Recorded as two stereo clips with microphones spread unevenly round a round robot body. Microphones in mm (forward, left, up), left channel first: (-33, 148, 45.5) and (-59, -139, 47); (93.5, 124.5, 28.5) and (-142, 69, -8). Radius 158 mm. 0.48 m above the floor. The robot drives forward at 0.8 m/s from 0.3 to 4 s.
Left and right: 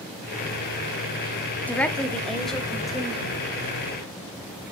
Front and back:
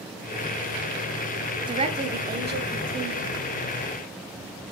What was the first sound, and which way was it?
A woman speaking, 165° left.